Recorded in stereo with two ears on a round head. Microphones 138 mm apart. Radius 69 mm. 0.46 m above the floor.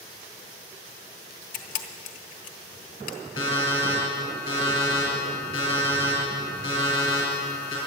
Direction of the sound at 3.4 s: 25° left (ahead or behind).